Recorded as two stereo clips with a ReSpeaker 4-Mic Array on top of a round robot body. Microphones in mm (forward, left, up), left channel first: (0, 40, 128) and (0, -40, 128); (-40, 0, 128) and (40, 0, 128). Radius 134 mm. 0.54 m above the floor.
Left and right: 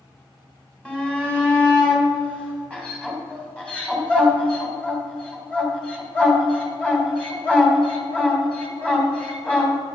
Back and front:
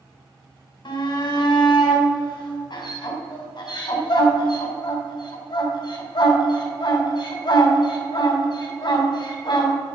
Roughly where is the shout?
Behind.